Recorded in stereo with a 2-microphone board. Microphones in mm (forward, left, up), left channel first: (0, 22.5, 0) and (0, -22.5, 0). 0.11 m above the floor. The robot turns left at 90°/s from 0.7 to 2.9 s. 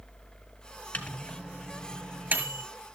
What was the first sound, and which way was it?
A microwave, 35° left (ahead or behind).